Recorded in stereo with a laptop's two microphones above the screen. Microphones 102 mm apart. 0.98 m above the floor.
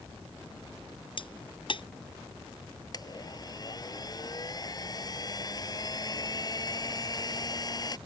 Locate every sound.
1.2 s a crack: 55° left (ahead or behind)
2.9 s a blender: 40° left (ahead or behind)